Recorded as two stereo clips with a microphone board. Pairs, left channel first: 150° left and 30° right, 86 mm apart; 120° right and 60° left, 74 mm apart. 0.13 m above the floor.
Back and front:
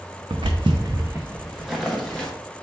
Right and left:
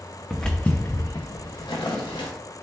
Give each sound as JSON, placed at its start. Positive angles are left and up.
{"t": 0.3, "sound": "footsteps", "azimuth_deg": -30, "distance_m": 0.6}